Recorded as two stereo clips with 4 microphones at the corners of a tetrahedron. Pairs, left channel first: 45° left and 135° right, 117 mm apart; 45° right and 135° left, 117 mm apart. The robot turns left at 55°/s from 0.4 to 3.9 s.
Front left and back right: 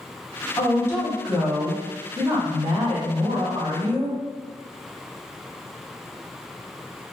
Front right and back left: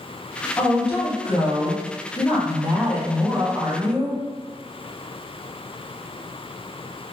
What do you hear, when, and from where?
0.6 s a woman speaking: straight ahead, 1.1 m; by 4.2 s 175° left, 1.1 m